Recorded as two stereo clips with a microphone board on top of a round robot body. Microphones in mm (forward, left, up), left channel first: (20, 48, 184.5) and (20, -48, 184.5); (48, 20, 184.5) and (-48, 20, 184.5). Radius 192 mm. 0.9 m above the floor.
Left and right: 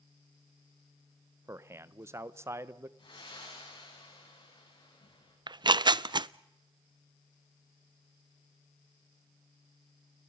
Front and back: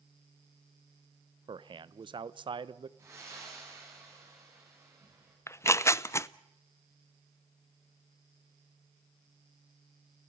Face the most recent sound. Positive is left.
turn(degrees=-55)